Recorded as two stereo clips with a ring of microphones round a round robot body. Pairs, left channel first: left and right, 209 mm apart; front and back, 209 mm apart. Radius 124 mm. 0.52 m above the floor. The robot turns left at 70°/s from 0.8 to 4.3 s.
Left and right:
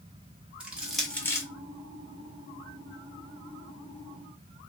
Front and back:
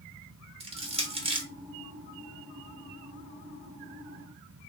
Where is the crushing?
170° right, 1.2 m; by 1.5 s 145° left, 1.2 m.